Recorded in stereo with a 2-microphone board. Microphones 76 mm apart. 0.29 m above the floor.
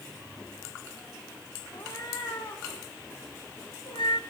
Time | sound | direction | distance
1.7 | a cat meowing | 65° left (ahead or behind) | 3.5 m